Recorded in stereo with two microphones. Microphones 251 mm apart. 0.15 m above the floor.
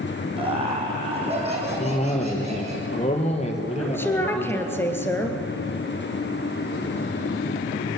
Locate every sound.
0.4 s laughter: 20° right (ahead or behind), 6.5 m; by 2.8 s 25° right (ahead or behind), 10.5 m
1.8 s a cough: 25° left (ahead or behind), 3.5 m
3.8 s a woman speaking: 10° left (ahead or behind), 3 m